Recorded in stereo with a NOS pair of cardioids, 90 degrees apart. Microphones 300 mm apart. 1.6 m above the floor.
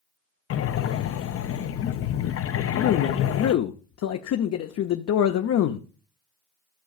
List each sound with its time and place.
0.5 s breathing: 50° left, 0.6 m
2.5 s a man speaking: 60° left, 0.7 m